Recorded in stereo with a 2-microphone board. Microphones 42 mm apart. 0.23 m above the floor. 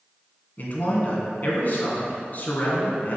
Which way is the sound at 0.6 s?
45° left (ahead or behind).